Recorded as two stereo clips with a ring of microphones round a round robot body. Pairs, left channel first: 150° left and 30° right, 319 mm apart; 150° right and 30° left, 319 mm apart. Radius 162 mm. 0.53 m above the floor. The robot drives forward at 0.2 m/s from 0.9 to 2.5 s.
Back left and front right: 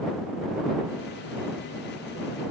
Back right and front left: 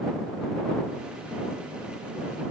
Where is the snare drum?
I don't hear a snare drum.